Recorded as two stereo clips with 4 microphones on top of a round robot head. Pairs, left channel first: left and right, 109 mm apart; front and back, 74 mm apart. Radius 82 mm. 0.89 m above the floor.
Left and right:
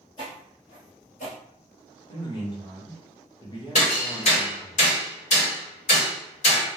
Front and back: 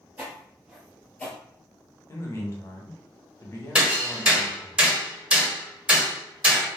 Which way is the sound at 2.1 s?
45° left.